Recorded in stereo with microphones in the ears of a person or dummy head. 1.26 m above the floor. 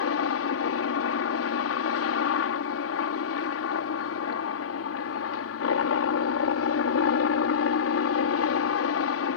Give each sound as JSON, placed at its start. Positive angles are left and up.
{"t": 0.0, "sound": "a helicopter", "side_deg": 65}